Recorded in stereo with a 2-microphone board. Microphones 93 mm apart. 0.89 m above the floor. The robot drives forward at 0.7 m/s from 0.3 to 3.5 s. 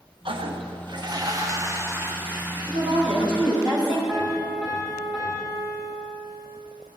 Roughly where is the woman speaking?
Right.